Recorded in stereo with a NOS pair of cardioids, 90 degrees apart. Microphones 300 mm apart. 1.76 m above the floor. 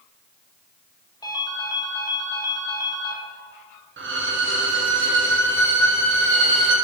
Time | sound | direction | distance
1.2 | a ringtone | 15° left | 2.0 m
4.0 | a violin | 40° right | 1.6 m